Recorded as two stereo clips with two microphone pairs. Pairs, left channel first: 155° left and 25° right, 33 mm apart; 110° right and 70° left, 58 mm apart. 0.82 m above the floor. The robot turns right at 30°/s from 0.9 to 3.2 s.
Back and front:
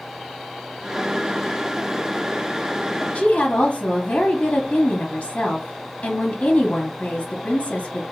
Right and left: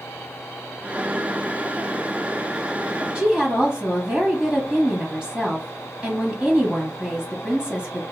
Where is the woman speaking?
140° left, 0.8 m; by 8.0 s 145° left, 0.8 m.